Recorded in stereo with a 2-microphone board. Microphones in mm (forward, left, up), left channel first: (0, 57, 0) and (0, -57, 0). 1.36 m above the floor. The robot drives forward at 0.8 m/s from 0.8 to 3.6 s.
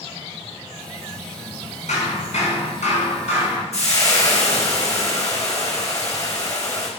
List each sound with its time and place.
1.9 s hammering: 80° left, 5.5 m; by 3.6 s 75° left (ahead or behind), 5.5 m
3.7 s frying: 65° left (ahead or behind), 3.5 m